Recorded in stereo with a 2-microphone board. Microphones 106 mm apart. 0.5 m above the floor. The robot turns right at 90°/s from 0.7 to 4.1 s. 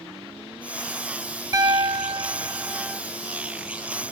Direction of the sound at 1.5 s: 130° right.